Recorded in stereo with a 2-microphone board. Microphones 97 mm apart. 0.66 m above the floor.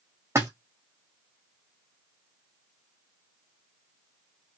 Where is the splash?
25° right (ahead or behind), 1.0 m.